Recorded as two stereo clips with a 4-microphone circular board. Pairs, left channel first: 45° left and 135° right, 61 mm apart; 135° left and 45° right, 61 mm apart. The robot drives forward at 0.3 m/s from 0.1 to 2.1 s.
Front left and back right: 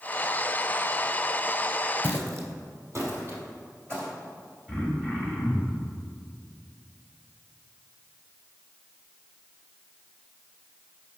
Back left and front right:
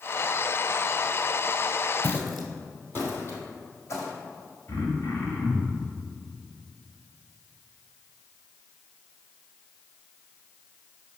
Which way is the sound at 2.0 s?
90° right.